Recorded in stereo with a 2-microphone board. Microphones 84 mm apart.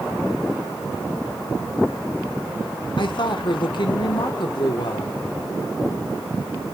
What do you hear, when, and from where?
3.0 s a woman speaking: 65° left (ahead or behind), 1.8 m